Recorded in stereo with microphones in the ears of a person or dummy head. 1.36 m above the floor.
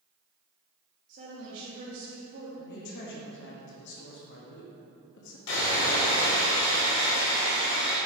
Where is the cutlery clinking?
No cutlery clinking in this recording.